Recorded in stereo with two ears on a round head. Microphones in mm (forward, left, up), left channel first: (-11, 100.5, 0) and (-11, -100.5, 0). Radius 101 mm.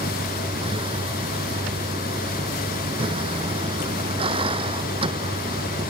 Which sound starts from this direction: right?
A vehicle, at 0.0 s.